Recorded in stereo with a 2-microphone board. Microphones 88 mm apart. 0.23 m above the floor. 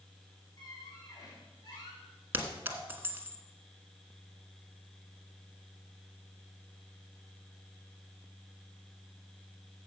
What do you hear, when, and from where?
0.6 s a squeak: 45° left (ahead or behind), 5 m
2.3 s a clink: 25° right (ahead or behind), 1.3 m